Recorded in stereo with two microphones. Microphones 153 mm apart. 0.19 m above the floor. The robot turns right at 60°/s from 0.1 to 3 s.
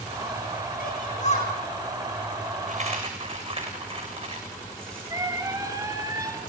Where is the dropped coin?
60° right (ahead or behind), 7.5 m; by 5.1 s 40° right (ahead or behind), 7.5 m.